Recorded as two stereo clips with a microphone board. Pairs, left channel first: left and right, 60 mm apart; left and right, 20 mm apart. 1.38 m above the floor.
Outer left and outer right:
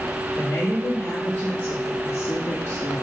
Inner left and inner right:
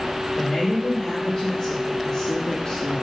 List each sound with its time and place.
0.3 s a woman speaking: 45° left (ahead or behind), 5 m; by 3.0 s 70° left (ahead or behind), 1.1 m